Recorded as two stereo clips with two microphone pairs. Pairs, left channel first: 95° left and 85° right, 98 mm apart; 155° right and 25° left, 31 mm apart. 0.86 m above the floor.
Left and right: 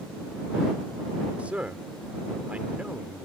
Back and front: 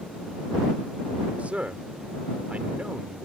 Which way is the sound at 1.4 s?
5° right.